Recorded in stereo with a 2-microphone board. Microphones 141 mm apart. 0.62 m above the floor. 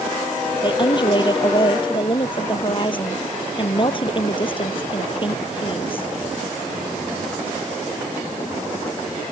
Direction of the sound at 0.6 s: 35° left (ahead or behind).